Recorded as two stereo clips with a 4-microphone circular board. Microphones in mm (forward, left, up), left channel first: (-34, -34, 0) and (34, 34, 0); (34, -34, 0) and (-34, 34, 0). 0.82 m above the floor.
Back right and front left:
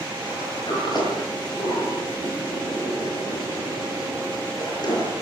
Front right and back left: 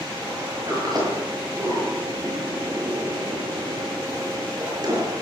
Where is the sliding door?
Straight behind, 8.5 m.